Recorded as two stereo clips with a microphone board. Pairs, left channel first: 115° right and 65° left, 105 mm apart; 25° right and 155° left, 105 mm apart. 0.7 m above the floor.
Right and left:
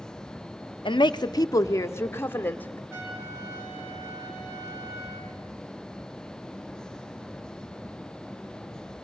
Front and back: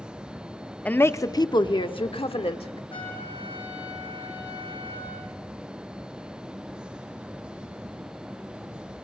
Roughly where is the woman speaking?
Right.